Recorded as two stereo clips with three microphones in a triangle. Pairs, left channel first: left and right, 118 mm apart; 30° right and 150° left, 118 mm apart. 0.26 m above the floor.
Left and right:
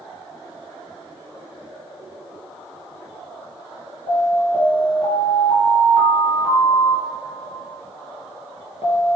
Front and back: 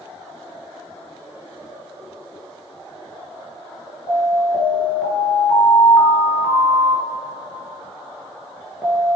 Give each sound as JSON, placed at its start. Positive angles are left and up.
{"t": 4.1, "sound": "an alarm", "azimuth_deg": 60, "distance_m": 3.5}